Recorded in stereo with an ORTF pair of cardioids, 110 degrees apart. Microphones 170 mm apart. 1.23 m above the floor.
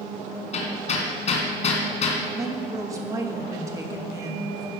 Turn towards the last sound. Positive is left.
turn(degrees=-20)